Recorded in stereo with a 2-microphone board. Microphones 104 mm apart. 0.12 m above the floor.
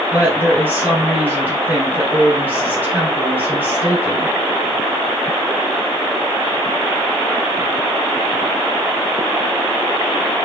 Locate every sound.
0.1 s a woman speaking: 15° right (ahead or behind), 2.0 m